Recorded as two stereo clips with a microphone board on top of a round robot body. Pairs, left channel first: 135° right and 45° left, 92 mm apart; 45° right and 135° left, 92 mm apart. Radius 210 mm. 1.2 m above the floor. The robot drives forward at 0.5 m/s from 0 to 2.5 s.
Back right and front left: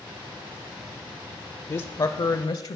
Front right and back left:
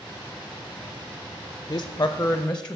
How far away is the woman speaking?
About 0.7 m.